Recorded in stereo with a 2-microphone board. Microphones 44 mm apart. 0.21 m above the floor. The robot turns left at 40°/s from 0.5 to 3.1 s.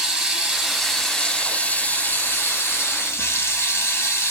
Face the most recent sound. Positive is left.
turn(degrees=90)